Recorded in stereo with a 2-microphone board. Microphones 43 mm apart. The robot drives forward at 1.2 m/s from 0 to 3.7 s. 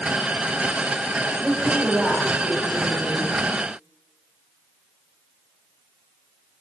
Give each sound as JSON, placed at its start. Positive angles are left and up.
{"t": 1.4, "sound": "a woman speaking", "side_deg": 0, "distance_m": 4.5}